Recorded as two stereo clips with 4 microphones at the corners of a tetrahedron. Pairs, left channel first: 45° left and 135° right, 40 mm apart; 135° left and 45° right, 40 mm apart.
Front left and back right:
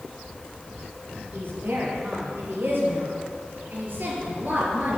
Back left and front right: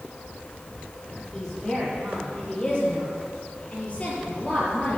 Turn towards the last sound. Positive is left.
turn(degrees=-175)